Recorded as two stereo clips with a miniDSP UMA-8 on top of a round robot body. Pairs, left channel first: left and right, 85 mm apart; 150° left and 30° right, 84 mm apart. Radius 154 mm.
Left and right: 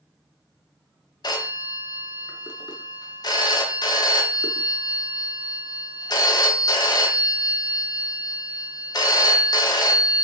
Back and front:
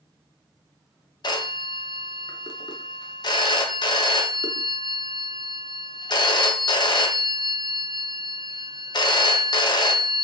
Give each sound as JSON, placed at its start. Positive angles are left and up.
{"t": 1.2, "sound": "a phone ringing", "azimuth_deg": 120, "distance_m": 0.6}